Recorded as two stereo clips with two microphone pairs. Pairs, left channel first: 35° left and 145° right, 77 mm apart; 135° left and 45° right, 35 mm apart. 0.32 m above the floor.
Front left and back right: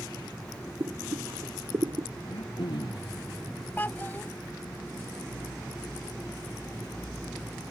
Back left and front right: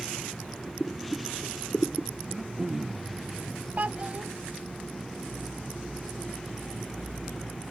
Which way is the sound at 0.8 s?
175° right.